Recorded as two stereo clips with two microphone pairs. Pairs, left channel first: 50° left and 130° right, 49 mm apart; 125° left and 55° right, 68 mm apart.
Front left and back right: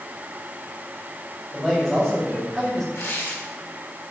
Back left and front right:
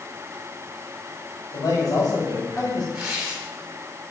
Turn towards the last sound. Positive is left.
turn(degrees=20)